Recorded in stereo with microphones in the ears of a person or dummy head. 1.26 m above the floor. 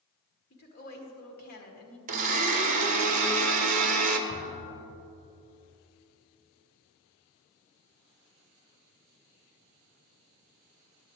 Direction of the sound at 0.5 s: 50° left (ahead or behind).